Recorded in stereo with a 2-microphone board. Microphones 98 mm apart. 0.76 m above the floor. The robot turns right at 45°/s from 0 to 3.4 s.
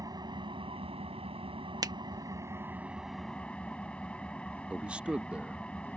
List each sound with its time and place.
0.0 s an engine running: 140° right; by 6.0 s 10° left
1.8 s a finger snap: 40° right (ahead or behind)
4.7 s a man speaking: 10° right (ahead or behind)